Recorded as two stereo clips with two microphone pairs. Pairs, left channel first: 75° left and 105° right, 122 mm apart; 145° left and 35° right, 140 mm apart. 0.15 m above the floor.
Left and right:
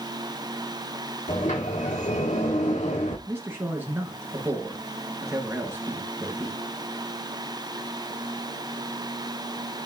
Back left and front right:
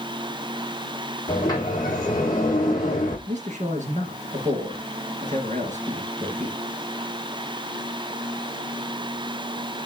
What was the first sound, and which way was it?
A sliding door, 80° left.